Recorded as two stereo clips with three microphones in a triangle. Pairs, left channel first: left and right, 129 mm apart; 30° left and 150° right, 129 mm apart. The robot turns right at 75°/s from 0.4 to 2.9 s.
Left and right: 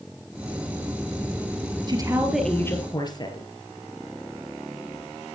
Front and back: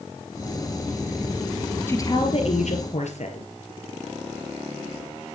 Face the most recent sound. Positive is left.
turn(degrees=35)